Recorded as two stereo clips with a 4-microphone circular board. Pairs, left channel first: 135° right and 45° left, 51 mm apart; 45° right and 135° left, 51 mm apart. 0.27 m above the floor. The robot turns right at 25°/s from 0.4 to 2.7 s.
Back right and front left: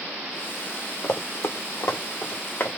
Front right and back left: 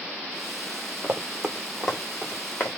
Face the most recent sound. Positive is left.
turn(degrees=-90)